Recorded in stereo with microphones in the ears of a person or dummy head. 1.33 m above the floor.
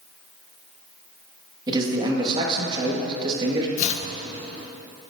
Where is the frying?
No frying in this recording.